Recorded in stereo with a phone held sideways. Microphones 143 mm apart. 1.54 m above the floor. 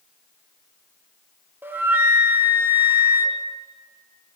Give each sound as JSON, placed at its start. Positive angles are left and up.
{"t": 1.6, "sound": "a flute", "side_deg": -15, "distance_m": 0.7}